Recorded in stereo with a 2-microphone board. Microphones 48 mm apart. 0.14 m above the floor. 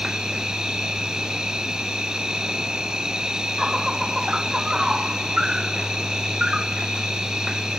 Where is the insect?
15° right (ahead or behind).